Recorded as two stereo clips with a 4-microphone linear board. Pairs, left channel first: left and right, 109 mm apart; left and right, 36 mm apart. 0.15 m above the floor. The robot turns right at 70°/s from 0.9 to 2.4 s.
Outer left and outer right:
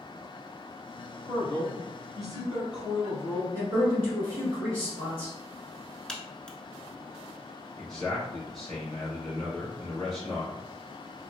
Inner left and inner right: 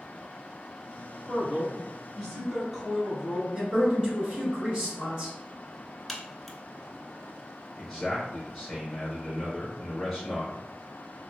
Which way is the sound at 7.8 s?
Centre (ahead or behind).